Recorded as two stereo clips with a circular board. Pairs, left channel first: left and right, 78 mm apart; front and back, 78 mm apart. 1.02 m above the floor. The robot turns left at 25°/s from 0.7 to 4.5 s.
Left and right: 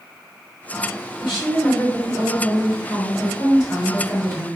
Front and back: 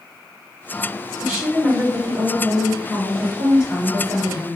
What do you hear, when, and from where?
1.2 s a woman speaking: 105° left, 1.5 m; by 4.6 s 25° left, 1.5 m